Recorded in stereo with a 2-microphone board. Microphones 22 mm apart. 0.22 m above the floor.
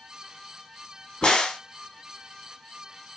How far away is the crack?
About 0.9 m.